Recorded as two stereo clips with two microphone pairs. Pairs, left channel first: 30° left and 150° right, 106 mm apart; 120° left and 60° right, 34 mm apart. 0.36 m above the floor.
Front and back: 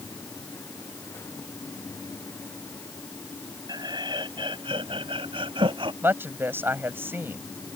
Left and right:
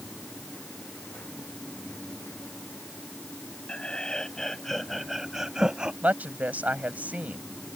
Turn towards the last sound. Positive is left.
turn(degrees=-85)